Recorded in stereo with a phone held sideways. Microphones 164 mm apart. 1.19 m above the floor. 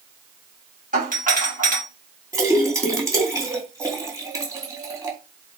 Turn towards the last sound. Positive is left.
turn(degrees=-20)  # may be behind; listen again after turning